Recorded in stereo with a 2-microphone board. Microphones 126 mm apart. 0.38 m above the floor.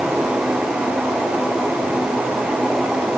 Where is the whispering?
I don't hear whispering.